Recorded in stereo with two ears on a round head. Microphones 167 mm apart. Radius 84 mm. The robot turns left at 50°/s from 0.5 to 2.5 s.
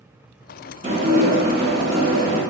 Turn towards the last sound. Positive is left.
turn(degrees=-135)